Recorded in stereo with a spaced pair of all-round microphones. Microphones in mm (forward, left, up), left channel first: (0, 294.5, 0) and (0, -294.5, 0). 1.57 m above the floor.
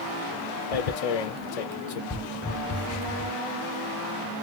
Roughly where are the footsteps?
Centre.